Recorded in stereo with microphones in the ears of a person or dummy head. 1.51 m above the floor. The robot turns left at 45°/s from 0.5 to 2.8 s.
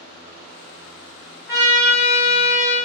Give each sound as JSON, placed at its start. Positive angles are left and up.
{"t": 1.5, "sound": "a trumpet", "azimuth_deg": -160, "distance_m": 1.6}